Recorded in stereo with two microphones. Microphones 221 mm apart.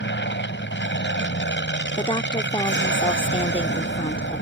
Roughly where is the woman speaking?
Left.